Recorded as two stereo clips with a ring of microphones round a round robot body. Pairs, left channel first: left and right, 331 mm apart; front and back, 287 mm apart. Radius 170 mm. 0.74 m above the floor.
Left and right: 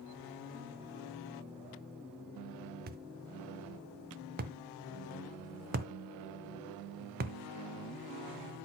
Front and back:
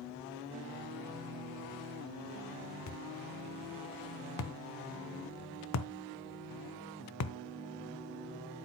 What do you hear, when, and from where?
2.9 s a thud: 30° right, 0.6 m